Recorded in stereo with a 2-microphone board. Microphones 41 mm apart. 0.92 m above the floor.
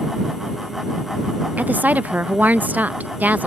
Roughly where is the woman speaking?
Right.